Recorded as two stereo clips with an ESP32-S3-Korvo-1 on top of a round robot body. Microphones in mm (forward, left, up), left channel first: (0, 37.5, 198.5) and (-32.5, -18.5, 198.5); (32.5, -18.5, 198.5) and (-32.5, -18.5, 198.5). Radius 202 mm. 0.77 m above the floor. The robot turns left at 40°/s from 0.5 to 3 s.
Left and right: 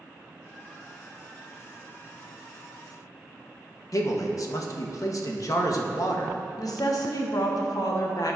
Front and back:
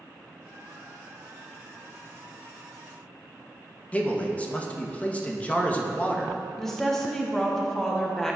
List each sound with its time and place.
3.9 s a man speaking: 65° left, 1.3 m
6.6 s a woman speaking: 80° left, 1.3 m